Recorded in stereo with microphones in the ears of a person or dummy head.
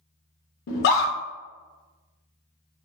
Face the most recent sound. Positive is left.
turn(degrees=55)  # may be behind; listen again after turning